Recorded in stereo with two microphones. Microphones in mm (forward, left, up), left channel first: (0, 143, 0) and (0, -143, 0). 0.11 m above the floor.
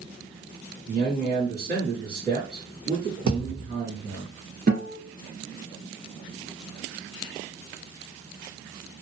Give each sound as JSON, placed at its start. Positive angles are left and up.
{"t": 0.9, "sound": "a man speaking", "side_deg": -35, "distance_m": 1.8}
{"t": 3.3, "sound": "a thud", "side_deg": -80, "distance_m": 1.1}
{"t": 4.7, "sound": "a guitar", "side_deg": -35, "distance_m": 1.7}